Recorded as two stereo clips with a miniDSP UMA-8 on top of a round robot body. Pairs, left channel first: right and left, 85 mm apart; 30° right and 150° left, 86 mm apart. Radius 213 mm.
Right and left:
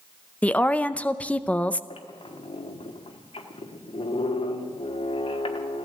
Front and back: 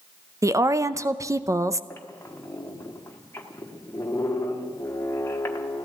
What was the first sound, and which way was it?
A woman speaking, 160° right.